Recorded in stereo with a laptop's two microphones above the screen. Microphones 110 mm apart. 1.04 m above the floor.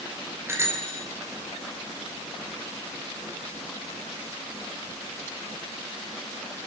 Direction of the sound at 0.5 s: 20° right (ahead or behind).